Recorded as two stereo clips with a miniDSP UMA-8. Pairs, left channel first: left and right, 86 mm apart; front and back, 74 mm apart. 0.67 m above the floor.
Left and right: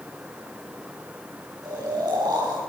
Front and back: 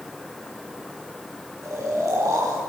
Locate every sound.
1.6 s snoring: 130° right, 4 m